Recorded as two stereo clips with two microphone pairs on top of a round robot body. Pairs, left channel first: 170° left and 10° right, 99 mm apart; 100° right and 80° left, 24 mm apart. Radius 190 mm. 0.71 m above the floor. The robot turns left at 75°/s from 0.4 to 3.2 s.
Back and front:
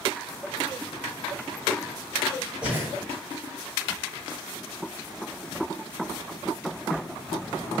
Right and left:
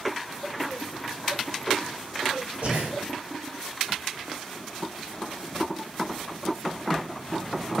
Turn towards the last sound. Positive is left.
turn(degrees=30)